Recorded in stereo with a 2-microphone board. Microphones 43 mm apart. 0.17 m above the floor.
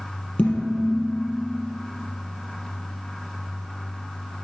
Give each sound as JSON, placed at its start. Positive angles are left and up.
{"t": 0.4, "sound": "dishes clattering", "side_deg": 25, "distance_m": 3.5}